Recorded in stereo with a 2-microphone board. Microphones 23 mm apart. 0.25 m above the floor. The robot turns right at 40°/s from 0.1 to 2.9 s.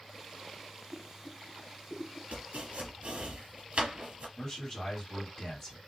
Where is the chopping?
75° right (ahead or behind), 1.2 m; by 4.3 s 60° right (ahead or behind), 1.2 m.